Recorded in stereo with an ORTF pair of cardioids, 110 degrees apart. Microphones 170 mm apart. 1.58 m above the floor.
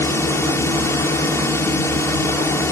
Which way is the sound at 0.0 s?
15° left.